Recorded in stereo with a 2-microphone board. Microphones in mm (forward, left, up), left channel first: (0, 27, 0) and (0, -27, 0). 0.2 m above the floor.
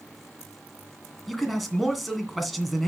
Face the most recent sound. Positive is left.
turn(degrees=0)  # may be behind; listen again after turning